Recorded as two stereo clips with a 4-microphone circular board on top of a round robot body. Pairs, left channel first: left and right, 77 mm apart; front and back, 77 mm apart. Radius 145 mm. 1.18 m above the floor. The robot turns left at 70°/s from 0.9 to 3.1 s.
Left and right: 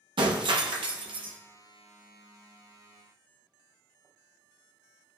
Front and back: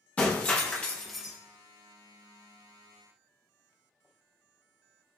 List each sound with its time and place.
0.2 s breaking glass: 70° right, 0.8 m; by 1.4 s 105° right, 0.8 m